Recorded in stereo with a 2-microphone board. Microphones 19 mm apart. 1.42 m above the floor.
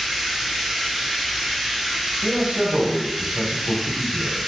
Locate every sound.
0.0 s running water: 10° right (ahead or behind), 1.1 m
2.2 s a man speaking: 80° right, 0.6 m